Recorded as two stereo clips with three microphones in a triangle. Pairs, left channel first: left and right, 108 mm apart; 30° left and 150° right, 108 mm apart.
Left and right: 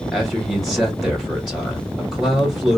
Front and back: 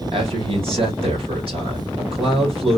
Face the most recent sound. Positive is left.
turn(degrees=180)